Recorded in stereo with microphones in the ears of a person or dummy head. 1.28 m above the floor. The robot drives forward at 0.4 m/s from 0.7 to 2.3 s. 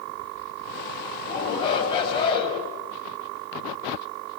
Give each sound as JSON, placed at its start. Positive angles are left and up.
{"t": 1.2, "sound": "a shout", "side_deg": 25, "distance_m": 7.5}